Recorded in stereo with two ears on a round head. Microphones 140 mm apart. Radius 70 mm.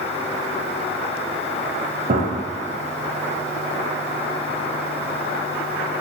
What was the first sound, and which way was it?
A gunshot, 55° right (ahead or behind).